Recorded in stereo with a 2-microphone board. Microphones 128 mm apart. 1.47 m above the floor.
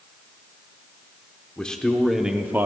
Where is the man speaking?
10° left (ahead or behind), 1.0 m; by 2.7 s 20° right (ahead or behind), 0.6 m.